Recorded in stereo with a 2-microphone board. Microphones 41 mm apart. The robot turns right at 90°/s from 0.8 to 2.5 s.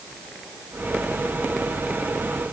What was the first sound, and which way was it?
Only background noise.